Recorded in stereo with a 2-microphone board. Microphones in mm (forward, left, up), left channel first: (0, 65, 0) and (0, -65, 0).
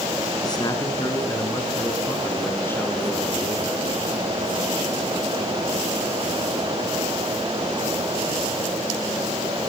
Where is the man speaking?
35° left (ahead or behind), 3.5 m; by 3.9 s 10° left (ahead or behind), 5.5 m.